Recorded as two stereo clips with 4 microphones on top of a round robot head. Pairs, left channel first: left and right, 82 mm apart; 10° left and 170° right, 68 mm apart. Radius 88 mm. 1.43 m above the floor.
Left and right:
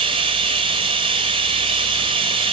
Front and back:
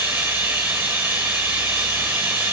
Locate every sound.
0.0 s running water: 95° right, 1.4 m